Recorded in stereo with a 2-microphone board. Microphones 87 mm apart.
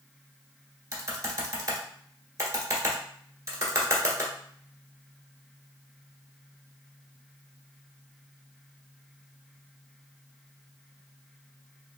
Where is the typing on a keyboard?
35° right (ahead or behind), 1.1 m.